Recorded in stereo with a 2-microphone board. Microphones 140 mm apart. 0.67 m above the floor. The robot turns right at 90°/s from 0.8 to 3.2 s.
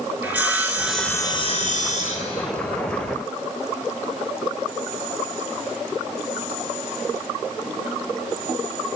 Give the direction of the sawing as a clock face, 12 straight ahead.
12 o'clock.